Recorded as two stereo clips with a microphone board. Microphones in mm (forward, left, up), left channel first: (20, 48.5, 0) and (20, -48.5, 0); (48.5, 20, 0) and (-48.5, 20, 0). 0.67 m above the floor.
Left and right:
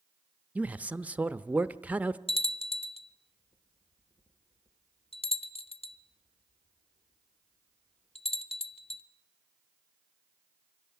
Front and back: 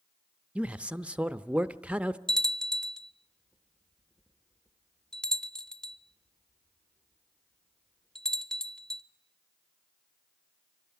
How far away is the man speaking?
About 0.6 m.